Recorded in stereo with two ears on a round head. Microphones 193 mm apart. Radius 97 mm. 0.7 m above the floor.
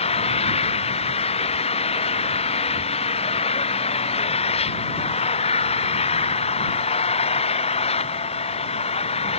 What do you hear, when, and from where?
0.0 s an engine running: 30° left (ahead or behind)